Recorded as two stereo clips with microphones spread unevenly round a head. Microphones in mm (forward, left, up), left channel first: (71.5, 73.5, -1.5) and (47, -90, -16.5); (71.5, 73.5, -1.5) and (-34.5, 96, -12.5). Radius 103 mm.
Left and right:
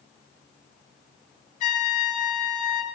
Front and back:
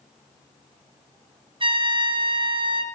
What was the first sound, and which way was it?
A trumpet, 135° left.